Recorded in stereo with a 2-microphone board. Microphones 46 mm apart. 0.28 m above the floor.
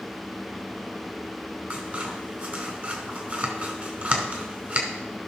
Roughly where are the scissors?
Right.